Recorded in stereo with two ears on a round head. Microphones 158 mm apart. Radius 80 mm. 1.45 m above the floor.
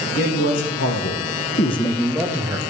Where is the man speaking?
70° left (ahead or behind), 1.8 m; by 2.6 s 20° right (ahead or behind), 1.3 m.